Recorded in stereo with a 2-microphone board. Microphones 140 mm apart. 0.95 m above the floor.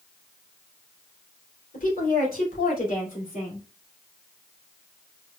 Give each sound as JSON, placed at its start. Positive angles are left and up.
{"t": 1.7, "sound": "a woman speaking", "side_deg": 85, "distance_m": 3.0}